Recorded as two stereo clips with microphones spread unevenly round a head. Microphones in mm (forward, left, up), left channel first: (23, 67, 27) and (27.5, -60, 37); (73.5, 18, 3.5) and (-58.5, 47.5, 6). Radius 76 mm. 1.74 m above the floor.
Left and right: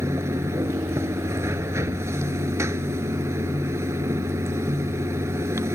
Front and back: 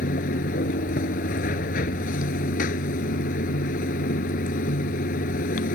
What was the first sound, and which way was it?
Running water, 25° right.